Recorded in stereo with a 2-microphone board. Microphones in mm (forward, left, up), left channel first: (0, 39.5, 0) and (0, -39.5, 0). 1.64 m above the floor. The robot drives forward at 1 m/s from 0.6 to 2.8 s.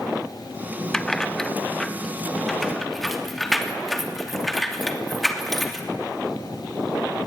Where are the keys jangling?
5° left (ahead or behind), 0.9 m; by 5.9 s centre (ahead or behind), 2.5 m.